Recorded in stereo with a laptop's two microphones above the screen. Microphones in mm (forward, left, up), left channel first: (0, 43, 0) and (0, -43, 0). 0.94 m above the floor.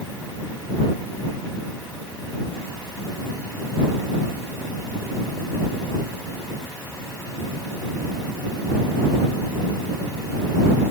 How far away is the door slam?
No door slam in this recording.